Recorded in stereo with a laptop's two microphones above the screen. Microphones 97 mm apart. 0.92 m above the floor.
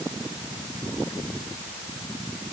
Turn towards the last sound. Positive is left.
No sound to turn to.